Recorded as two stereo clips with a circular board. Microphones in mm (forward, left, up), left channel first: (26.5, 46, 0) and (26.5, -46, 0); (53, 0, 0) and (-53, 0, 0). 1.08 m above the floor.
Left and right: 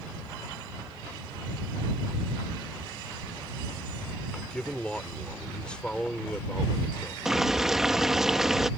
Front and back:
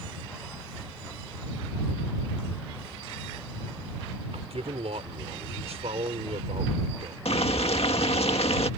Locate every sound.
4.3 s a man speaking: 170° left
7.2 s boiling: 5° right